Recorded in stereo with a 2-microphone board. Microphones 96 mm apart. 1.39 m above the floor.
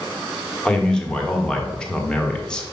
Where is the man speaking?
10° left (ahead or behind), 1.3 m.